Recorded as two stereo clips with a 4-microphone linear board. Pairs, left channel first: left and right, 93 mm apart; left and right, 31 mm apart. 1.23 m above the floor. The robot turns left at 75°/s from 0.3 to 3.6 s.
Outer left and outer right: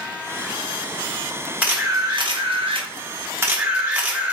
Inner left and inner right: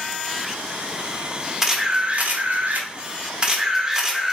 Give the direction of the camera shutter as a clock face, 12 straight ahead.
12 o'clock.